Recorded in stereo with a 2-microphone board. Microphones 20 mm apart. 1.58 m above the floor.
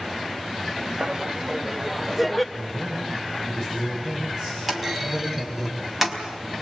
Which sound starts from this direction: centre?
A clunk, at 4.7 s.